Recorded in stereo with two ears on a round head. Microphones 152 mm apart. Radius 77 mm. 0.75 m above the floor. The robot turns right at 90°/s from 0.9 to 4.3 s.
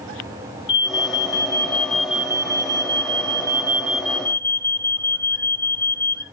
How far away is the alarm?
About 1.4 m.